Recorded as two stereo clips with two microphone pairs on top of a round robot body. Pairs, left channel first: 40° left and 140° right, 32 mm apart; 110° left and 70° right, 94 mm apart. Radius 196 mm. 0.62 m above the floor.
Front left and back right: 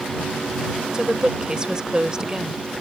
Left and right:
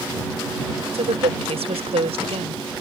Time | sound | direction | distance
0.9 | a woman speaking | 70° right | ?